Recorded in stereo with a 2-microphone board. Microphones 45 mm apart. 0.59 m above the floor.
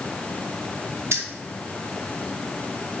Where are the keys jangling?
70° right (ahead or behind), 1.2 m.